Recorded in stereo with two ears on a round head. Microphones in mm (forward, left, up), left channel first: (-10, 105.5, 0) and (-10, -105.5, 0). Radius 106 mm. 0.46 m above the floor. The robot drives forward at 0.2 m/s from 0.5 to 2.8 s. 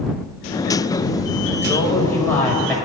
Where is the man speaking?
10° left (ahead or behind), 1.7 m.